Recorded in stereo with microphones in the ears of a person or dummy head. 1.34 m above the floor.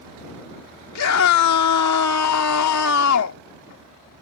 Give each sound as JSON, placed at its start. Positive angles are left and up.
{"t": 0.9, "sound": "a scream", "side_deg": 90}